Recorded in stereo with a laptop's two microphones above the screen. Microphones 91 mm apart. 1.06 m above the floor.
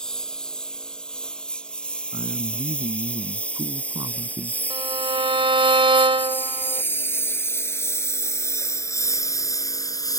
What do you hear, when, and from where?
0.0 s a lawn mower: 5° left (ahead or behind); by 10.2 s 45° left (ahead or behind)
2.1 s a man speaking: 50° right (ahead or behind)
4.7 s a violin: 75° right (ahead or behind)